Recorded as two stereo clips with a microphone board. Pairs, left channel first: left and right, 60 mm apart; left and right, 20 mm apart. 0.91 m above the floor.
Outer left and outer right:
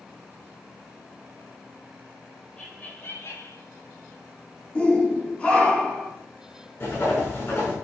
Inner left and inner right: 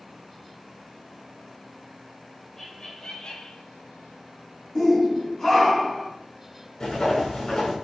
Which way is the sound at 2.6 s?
15° left (ahead or behind).